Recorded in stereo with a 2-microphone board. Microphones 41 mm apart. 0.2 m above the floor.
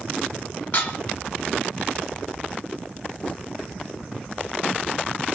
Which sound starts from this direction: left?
Dishes clattering, at 0.7 s.